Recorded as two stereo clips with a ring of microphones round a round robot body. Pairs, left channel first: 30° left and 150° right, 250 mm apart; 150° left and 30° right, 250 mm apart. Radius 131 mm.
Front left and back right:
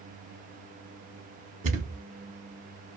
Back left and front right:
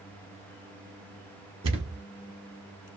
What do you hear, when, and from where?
1.6 s a thud: 95° right, 0.7 m